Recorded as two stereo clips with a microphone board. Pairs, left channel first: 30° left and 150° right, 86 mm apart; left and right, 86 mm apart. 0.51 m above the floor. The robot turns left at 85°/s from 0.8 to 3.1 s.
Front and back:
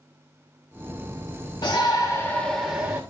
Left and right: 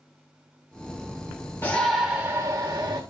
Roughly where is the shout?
Ahead left.